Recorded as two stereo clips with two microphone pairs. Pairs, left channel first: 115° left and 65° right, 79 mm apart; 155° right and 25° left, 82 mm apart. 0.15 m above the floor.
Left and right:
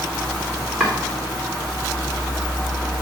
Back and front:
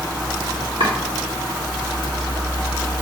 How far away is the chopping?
About 3.5 m.